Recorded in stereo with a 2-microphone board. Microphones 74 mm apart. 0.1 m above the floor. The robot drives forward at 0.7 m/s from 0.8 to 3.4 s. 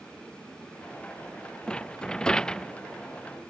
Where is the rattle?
15° left (ahead or behind); by 2.7 s 10° left (ahead or behind).